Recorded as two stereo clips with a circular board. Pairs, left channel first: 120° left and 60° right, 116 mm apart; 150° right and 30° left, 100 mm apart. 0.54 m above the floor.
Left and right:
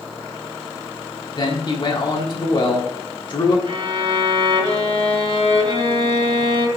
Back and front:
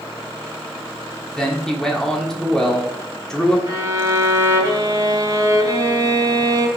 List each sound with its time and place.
1.4 s a man speaking: 130° left, 1.4 m
3.7 s a violin: 20° right, 1.8 m